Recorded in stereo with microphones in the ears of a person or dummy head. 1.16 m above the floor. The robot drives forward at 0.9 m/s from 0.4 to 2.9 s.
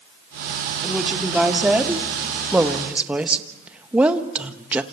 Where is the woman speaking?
5° right (ahead or behind), 3.5 m.